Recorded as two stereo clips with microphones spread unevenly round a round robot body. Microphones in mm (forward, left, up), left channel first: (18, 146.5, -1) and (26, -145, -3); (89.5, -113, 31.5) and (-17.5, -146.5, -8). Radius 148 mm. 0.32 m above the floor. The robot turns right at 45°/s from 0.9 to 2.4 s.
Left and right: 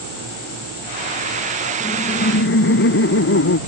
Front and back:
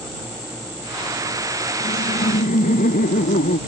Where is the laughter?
10° left; by 3.6 s 40° left.